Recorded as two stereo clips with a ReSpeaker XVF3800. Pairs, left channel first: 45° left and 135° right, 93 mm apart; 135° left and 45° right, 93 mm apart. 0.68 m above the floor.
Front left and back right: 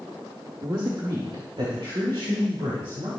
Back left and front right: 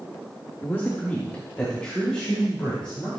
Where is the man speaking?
165° right, 1.4 m; by 3.1 s 140° right, 5 m.